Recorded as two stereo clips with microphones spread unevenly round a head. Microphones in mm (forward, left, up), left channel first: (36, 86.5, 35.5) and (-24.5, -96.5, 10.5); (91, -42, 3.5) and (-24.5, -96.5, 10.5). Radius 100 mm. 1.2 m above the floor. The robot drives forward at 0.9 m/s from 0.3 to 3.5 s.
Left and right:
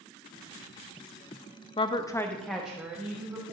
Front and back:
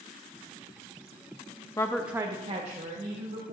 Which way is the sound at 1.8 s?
25° left.